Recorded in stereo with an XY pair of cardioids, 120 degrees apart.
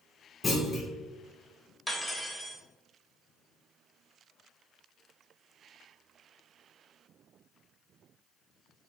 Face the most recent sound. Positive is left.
turn(degrees=0)